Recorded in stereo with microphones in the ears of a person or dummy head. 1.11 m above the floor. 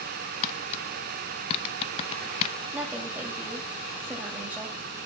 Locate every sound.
0.4 s tapping: 35° left (ahead or behind), 0.6 m
2.7 s a woman speaking: 10° right (ahead or behind), 2 m